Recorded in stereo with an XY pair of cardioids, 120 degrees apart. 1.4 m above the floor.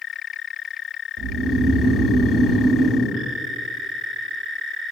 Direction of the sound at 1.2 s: 55° right.